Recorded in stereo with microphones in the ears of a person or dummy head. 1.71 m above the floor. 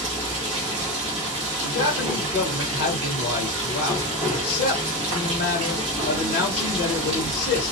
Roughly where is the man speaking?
Left.